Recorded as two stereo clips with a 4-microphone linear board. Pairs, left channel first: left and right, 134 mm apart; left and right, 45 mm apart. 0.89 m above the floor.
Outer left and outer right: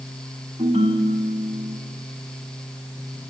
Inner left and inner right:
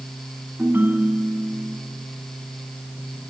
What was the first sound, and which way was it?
A ringtone, 40° right (ahead or behind).